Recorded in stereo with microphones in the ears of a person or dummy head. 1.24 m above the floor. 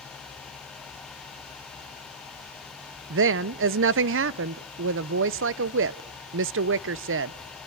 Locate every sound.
3.1 s a woman speaking: 65° right (ahead or behind), 0.6 m